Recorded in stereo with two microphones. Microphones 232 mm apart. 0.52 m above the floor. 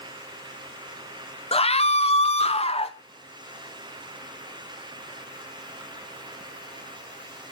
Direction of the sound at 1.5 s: 25° left (ahead or behind).